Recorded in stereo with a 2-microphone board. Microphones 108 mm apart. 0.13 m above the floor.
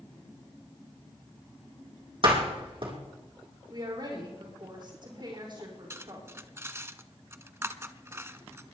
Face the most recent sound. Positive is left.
turn(degrees=-25)  # may be behind; listen again after turning